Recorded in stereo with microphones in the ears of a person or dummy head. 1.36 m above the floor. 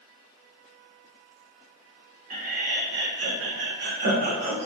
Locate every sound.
2.3 s laughter: 40° right (ahead or behind), 0.9 m